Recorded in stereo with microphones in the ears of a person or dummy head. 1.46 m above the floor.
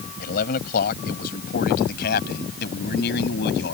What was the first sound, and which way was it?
A man speaking, 50° left (ahead or behind).